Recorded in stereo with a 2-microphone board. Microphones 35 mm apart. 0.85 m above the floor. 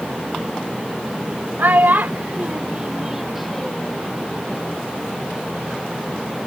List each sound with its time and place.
1.6 s a child speaking: 85° right; by 4.0 s 15° left (ahead or behind)